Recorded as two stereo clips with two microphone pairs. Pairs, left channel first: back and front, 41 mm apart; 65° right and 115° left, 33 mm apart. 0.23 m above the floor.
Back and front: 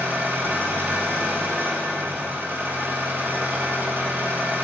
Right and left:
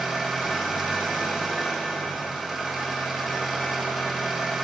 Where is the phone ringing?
I don't hear a phone ringing.